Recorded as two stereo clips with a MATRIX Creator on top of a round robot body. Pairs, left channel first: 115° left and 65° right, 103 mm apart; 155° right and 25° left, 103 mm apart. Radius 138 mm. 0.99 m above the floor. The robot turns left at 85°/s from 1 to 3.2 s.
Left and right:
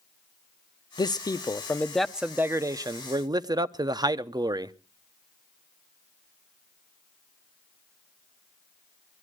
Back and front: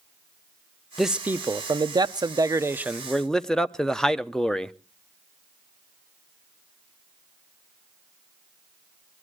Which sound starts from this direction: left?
A man speaking, at 1.0 s.